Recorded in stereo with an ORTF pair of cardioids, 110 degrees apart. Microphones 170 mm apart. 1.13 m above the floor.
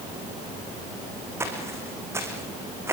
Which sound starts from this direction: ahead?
Footsteps, at 1.4 s.